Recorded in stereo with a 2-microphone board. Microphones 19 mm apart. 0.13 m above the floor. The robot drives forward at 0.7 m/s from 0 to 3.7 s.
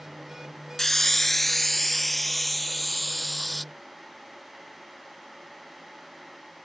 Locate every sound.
0.8 s a hiss: 20° left (ahead or behind); by 3.6 s 5° left (ahead or behind)